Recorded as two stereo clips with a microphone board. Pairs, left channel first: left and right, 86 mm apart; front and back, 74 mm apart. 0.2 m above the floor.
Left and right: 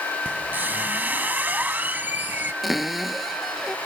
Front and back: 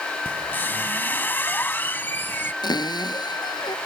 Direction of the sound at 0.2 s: 35° right.